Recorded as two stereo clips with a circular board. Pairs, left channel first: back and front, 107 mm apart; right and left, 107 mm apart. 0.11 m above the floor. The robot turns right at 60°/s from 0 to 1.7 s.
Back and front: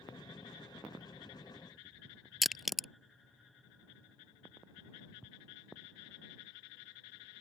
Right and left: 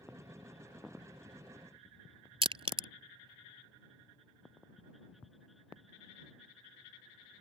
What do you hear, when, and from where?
2.4 s crushing: 90° left